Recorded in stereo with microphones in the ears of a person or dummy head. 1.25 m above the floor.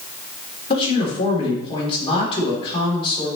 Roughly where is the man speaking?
Left.